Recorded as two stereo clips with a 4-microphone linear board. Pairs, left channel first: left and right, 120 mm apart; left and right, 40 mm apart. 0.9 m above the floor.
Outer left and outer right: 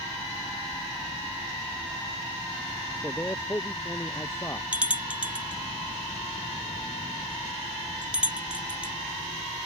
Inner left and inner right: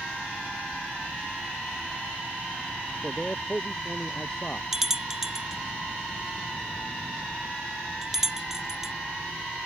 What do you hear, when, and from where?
3.0 s a man speaking: 20° left (ahead or behind); by 4.6 s 25° left (ahead or behind)
4.7 s a bell: 10° right (ahead or behind)